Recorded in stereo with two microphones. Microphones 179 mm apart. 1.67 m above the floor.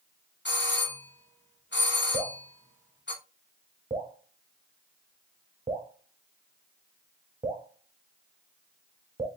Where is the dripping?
30° right (ahead or behind), 0.7 m.